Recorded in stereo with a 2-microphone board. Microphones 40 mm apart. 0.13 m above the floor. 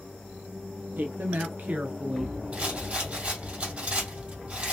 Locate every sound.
1.0 s a woman speaking: 60° right (ahead or behind), 2.5 m; by 2.4 s 5° right (ahead or behind), 1.2 m
2.5 s a rattle: 35° right (ahead or behind), 2.5 m